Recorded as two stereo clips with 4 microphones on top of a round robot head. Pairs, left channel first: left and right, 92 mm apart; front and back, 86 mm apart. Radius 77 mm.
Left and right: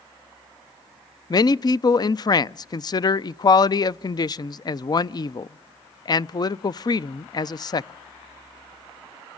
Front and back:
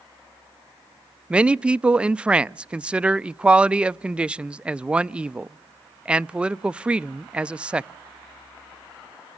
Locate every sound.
1.3 s a man speaking: 105° left, 0.5 m